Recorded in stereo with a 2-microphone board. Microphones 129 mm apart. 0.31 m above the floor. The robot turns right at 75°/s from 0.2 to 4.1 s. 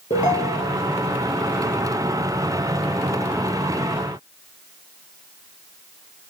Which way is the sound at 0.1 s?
70° left.